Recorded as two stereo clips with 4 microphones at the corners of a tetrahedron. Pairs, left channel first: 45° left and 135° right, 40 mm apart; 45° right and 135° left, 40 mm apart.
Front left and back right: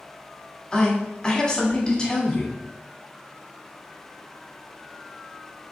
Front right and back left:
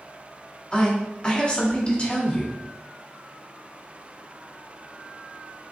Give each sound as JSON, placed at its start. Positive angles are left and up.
{"t": 0.7, "sound": "a woman speaking", "azimuth_deg": -10, "distance_m": 1.5}